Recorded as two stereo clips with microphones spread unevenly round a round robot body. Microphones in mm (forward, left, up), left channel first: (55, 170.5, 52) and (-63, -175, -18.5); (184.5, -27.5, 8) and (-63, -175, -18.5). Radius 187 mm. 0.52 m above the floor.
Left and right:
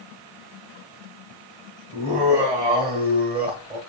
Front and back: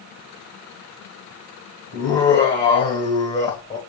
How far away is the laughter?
About 2 m.